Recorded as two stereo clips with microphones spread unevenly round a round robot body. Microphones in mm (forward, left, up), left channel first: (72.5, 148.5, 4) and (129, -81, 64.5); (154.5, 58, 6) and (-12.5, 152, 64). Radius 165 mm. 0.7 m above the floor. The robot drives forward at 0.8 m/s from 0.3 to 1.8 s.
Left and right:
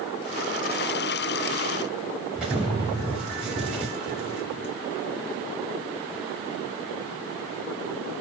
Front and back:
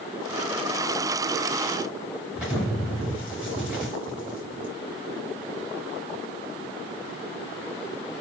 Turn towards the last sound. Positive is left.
turn(degrees=-145)